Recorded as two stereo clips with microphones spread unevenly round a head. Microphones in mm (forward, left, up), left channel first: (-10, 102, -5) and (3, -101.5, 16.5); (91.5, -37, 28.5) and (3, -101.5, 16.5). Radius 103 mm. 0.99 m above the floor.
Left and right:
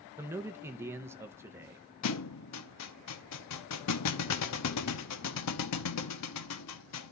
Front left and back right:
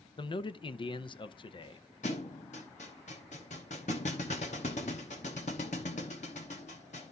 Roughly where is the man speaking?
Ahead.